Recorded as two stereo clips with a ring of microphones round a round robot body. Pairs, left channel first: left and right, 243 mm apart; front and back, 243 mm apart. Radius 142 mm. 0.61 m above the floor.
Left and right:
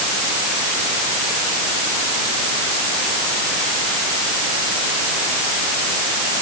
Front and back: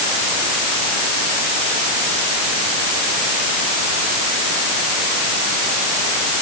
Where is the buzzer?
No buzzer in this recording.